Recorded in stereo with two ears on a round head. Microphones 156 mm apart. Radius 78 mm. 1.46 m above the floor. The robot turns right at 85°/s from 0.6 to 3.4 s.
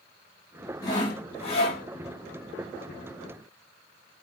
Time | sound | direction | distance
0.8 | sawing | 35° left | 1.2 m